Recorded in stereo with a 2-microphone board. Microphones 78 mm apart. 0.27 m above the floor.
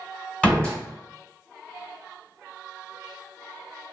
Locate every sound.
0.4 s a door slam: 15° left (ahead or behind), 1.2 m